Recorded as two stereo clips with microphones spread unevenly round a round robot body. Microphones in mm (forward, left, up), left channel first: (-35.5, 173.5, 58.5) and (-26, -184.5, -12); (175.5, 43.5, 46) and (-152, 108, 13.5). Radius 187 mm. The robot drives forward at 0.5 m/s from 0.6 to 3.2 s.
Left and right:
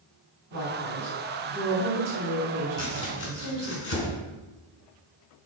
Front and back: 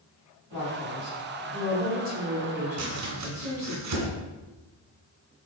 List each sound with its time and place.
0.5 s a woman speaking: 35° right, 3 m; by 3.8 s 60° right, 2 m
2.8 s chopping: 150° left, 2 m